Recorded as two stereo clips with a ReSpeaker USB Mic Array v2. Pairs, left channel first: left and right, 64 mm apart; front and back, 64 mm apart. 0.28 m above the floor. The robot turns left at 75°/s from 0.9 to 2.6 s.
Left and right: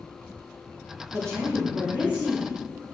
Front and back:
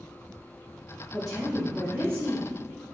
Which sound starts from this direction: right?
A woman speaking, at 1.1 s.